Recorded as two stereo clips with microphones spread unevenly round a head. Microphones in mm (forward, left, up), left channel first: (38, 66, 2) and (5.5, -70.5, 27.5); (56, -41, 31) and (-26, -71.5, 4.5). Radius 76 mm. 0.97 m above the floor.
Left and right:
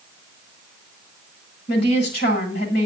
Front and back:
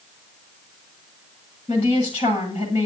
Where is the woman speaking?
75° left, 8.5 m.